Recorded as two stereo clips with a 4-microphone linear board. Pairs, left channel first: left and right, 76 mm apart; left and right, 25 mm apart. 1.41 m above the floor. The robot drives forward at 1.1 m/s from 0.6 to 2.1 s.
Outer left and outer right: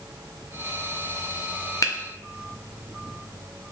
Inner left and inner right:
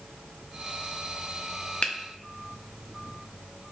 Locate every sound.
1.8 s a finger snap: 50° left (ahead or behind), 0.6 m; by 1.9 s 40° left (ahead or behind), 0.7 m